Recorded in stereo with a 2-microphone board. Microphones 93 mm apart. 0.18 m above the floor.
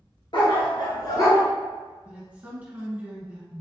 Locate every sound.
0.3 s a dog barking: 65° left (ahead or behind), 1.4 m; by 1.4 s 35° left (ahead or behind), 1.0 m
2.0 s a woman speaking: 15° right (ahead or behind), 1.8 m